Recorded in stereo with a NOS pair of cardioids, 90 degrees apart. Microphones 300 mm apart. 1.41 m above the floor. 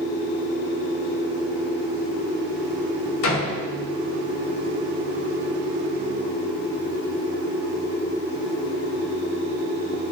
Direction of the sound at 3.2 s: 65° left.